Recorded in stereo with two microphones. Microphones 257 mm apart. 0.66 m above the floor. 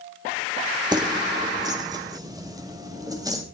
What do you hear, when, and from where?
0.9 s keys jangling: 15° right (ahead or behind), 1.3 m